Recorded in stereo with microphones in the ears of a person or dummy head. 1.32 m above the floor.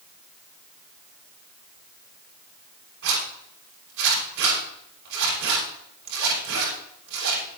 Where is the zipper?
70° right (ahead or behind), 8 m.